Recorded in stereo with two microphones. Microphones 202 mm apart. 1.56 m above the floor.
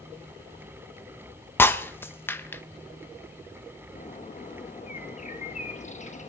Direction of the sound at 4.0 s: 35° left (ahead or behind).